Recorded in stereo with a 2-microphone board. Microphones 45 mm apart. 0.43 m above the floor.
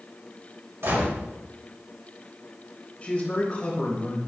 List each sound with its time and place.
0.8 s a gunshot: 75° right (ahead or behind), 3.5 m
3.0 s a man speaking: 25° left (ahead or behind), 2.5 m